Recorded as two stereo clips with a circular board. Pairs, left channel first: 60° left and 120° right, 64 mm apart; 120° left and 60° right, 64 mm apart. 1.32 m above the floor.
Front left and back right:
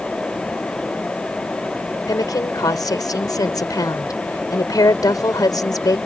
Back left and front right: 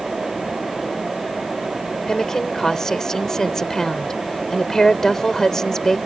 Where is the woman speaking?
40° left.